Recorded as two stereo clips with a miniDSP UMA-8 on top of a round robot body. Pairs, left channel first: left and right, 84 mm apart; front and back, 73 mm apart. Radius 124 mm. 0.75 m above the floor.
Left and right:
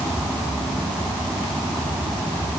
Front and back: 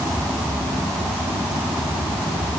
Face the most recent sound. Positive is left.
No sound to turn to.